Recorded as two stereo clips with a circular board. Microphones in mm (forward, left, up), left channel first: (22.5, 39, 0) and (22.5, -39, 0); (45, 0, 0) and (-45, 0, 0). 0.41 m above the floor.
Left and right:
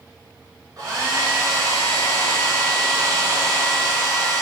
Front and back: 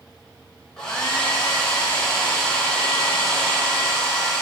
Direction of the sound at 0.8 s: 80° right.